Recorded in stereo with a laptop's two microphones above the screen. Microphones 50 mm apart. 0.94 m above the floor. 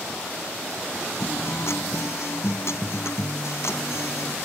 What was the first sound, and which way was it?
A guitar, 65° left (ahead or behind).